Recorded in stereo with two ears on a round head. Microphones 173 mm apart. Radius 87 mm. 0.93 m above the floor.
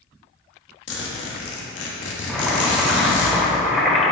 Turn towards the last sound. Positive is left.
turn(degrees=0)  # may be behind; listen again after turning